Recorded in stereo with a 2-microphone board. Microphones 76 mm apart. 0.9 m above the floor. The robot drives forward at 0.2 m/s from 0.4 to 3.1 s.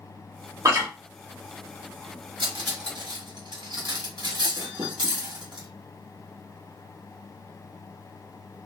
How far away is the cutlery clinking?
About 1.0 m.